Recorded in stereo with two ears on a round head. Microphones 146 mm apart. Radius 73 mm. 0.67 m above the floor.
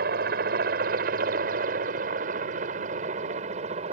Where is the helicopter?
60° right (ahead or behind); by 3.9 s 40° right (ahead or behind).